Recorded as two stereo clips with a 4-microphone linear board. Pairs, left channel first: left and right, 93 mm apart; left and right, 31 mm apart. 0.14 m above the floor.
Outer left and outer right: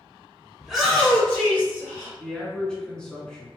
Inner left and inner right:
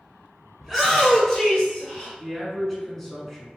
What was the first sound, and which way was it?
A shout, 5° right (ahead or behind).